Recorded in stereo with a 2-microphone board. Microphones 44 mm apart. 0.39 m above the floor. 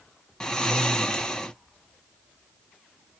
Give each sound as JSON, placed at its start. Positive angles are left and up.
{"t": 0.4, "sound": "snoring", "side_deg": 15, "distance_m": 0.6}